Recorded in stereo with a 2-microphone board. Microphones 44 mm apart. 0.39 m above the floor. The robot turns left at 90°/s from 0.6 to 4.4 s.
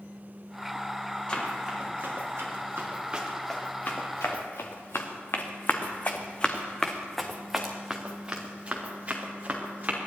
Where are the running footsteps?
20° left (ahead or behind), 5 m; by 10.0 s 40° right (ahead or behind), 4 m.